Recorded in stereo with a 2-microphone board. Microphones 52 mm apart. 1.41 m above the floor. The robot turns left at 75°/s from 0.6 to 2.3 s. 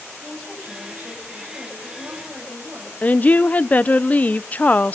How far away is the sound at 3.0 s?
About 0.7 m.